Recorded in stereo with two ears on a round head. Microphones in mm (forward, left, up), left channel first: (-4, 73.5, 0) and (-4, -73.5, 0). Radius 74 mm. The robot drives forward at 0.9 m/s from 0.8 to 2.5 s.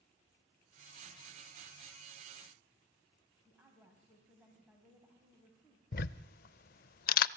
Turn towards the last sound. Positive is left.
turn(degrees=60)  # may be behind; listen again after turning